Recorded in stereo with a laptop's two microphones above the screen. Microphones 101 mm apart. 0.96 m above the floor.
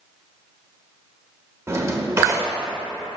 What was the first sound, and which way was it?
A drawer, 30° right (ahead or behind).